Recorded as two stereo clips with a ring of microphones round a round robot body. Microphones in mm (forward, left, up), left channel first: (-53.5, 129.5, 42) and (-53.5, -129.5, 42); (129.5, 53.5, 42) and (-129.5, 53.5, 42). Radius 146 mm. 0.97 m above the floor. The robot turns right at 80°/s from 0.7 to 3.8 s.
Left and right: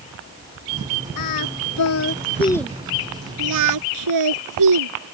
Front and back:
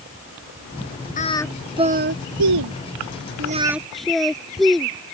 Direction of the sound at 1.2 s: 60° left.